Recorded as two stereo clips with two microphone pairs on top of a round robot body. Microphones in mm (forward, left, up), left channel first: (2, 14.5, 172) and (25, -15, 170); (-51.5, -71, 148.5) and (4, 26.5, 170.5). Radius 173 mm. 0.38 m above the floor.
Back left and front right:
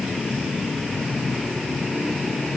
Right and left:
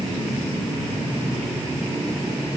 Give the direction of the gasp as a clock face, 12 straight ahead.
No gasp in this recording.